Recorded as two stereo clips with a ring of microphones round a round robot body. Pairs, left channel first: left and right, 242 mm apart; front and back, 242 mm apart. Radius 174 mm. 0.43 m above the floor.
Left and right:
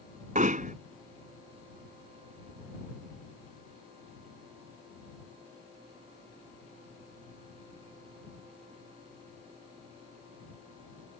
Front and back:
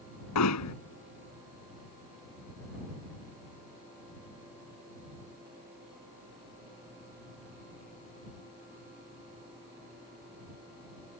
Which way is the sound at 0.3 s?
30° right.